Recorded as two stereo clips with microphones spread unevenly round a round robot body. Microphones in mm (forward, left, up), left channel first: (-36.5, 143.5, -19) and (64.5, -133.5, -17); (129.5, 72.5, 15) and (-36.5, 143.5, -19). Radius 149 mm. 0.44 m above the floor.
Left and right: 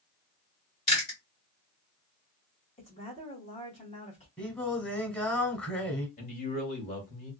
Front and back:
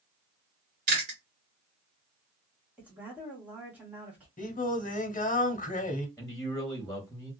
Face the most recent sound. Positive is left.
turn(degrees=70)